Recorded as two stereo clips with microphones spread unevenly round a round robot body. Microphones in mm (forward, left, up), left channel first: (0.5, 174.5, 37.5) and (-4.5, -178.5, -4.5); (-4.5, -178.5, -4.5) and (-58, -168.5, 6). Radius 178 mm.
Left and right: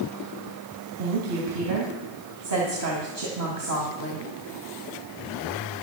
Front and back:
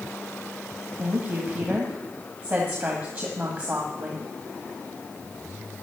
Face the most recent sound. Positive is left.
turn(degrees=-130)